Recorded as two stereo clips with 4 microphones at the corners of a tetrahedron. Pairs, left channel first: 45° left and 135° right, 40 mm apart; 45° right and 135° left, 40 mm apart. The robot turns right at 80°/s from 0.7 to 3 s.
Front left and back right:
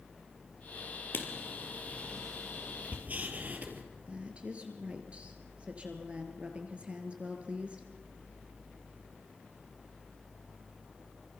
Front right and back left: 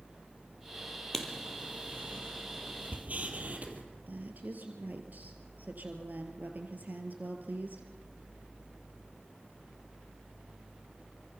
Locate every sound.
1.1 s writing: 35° left, 3.5 m; by 3.8 s straight behind, 3.5 m
4.1 s a woman speaking: 170° left, 3 m